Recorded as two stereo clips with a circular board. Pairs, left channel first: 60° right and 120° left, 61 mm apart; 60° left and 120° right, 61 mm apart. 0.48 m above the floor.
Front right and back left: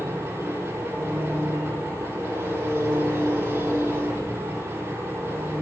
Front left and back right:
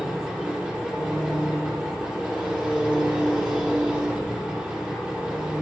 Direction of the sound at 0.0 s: 170° left.